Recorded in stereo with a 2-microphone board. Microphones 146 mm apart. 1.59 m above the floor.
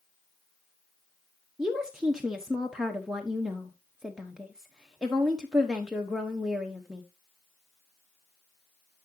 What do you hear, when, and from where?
1.6 s a woman speaking: 5° right (ahead or behind), 1.0 m